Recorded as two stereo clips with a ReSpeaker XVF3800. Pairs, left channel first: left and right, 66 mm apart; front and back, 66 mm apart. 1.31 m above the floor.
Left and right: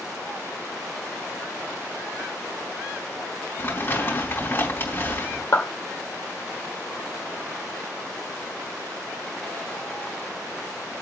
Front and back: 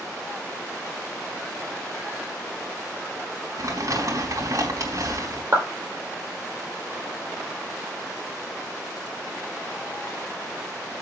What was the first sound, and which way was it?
Crumpling, 145° left.